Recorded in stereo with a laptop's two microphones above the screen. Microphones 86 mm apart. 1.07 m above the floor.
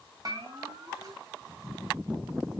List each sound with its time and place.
0.2 s a bell: 45° right (ahead or behind), 2.5 m